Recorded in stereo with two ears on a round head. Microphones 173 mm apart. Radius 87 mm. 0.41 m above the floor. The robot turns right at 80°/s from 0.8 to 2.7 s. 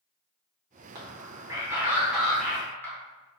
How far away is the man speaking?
About 0.9 m.